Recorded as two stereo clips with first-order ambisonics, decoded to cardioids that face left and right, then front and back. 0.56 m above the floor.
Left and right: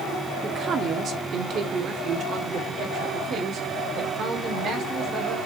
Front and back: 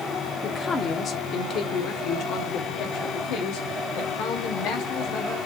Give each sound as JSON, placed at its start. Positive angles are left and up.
{"t": 0.4, "sound": "a man speaking", "azimuth_deg": -50, "distance_m": 1.1}